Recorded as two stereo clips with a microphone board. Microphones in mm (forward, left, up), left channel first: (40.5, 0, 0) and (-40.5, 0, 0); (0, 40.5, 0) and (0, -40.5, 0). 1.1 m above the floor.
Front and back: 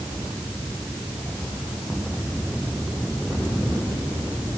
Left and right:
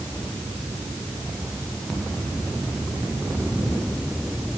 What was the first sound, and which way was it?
Only background noise.